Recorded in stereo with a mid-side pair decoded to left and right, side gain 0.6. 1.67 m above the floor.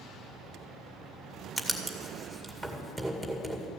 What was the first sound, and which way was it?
Writing, straight ahead.